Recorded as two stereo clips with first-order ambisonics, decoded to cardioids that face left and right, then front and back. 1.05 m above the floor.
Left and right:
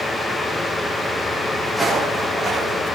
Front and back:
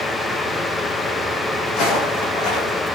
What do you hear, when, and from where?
1.7 s footsteps: straight ahead, 2.5 m; by 2.8 s 5° right, 3.5 m